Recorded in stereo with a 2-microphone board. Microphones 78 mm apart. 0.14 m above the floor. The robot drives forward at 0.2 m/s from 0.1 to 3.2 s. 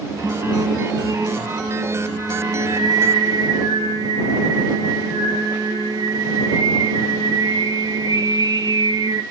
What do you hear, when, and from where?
0.2 s singing: 45° right (ahead or behind), 1.4 m; by 9.2 s 65° right (ahead or behind), 1.1 m